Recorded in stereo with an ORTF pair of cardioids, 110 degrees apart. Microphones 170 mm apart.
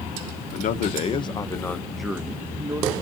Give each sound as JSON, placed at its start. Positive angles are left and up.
{"t": 0.5, "sound": "a man speaking", "azimuth_deg": 55, "distance_m": 0.8}